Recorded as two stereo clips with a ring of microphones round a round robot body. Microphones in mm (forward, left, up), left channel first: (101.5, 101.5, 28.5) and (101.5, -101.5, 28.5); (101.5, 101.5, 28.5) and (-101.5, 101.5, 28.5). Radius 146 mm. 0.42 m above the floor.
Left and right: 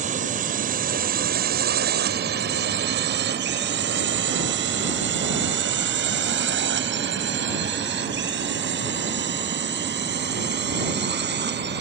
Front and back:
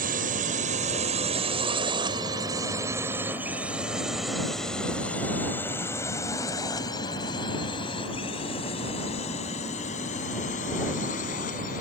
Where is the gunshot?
No gunshot in this recording.